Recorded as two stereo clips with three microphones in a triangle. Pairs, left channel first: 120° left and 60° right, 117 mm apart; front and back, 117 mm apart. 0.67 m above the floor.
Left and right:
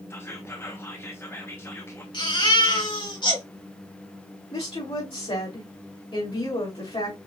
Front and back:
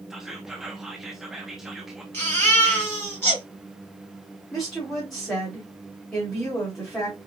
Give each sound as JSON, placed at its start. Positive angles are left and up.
{"t": 0.1, "sound": "whispering", "azimuth_deg": 95, "distance_m": 0.8}
{"t": 2.1, "sound": "a baby crying", "azimuth_deg": 70, "distance_m": 3.0}
{"t": 4.5, "sound": "a woman speaking", "azimuth_deg": 85, "distance_m": 3.0}